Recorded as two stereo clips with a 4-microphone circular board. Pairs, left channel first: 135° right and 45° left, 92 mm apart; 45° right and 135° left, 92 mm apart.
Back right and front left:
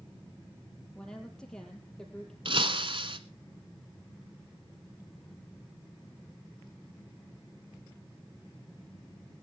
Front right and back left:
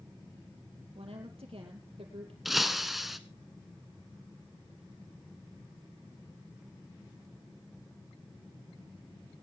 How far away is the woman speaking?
About 6 m.